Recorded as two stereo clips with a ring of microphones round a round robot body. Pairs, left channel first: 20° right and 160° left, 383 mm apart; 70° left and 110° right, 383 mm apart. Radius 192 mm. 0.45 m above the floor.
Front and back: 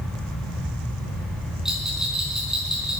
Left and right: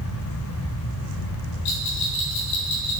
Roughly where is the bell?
Left.